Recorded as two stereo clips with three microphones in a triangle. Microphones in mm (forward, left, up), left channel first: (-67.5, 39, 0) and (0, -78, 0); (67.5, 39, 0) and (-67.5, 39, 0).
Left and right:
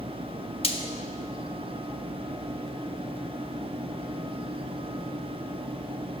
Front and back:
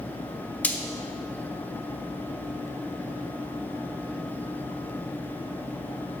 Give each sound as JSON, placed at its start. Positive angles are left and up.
{"t": 0.6, "sound": "frying", "azimuth_deg": 80, "distance_m": 0.7}